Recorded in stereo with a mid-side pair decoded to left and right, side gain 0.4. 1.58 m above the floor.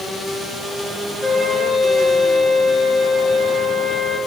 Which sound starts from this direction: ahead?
A flute, at 1.2 s.